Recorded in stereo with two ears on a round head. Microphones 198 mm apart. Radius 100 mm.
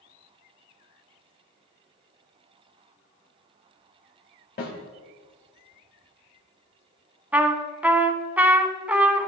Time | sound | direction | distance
4.6 | a snare drum | 45° left (ahead or behind) | 2.5 m
7.3 | a trumpet | 5° right (ahead or behind) | 0.6 m